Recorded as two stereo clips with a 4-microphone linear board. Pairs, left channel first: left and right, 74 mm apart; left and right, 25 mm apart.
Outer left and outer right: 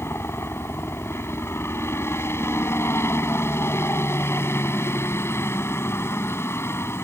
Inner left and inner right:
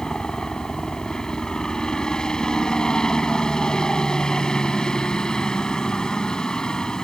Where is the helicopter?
35° left (ahead or behind).